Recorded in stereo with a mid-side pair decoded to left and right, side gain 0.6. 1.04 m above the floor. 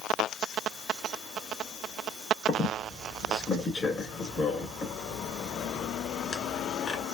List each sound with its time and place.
2.5 s a squeak: 30° left, 2 m